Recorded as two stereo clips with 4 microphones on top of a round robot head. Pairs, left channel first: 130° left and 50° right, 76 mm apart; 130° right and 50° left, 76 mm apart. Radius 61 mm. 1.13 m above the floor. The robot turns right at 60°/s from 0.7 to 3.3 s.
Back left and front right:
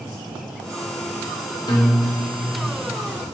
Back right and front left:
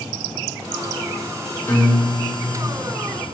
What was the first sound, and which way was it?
A guitar, 165° left.